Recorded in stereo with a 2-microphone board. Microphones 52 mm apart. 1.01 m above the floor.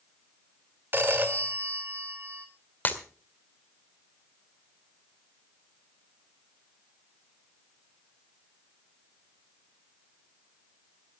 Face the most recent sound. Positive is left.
turn(degrees=35)  # may be behind; listen again after turning